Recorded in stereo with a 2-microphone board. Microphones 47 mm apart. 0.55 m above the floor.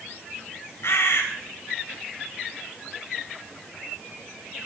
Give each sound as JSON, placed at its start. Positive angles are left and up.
{"t": 0.8, "sound": "a bird", "side_deg": 65, "distance_m": 3.0}